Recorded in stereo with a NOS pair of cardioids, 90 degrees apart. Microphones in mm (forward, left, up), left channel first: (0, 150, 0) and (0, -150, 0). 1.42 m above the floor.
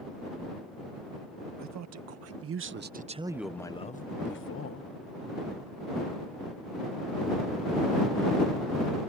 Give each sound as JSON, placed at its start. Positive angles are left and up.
{"t": 1.6, "sound": "a man speaking", "azimuth_deg": -65}